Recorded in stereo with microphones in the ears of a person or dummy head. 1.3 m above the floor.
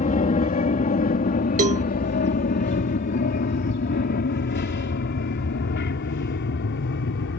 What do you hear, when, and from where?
0.0 s an aircraft: 35° left (ahead or behind); by 7.4 s 65° left (ahead or behind)
1.6 s a cowbell: 40° right (ahead or behind)